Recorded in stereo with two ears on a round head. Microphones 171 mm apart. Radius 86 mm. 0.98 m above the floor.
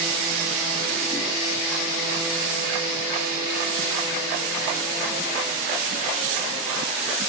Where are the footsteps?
I don't hear footsteps.